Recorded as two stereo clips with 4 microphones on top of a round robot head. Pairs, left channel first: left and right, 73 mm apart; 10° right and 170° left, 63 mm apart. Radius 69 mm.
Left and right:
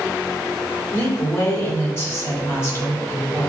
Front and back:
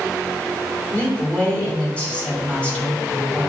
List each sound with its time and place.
0.9 s a woman speaking: 55° left, 1.6 m